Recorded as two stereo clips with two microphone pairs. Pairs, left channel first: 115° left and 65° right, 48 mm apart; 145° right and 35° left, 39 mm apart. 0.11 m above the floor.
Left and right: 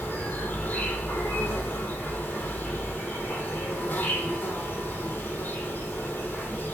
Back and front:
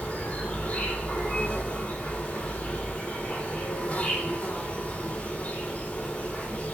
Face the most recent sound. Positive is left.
turn(degrees=165)